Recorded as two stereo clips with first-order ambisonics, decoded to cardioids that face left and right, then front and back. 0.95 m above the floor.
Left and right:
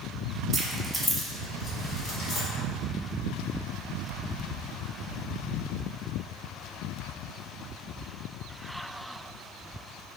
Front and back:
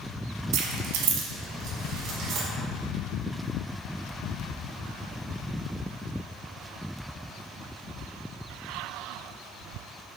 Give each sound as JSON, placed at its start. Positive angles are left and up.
{"t": 0.5, "sound": "keys jangling", "azimuth_deg": -160, "distance_m": 0.5}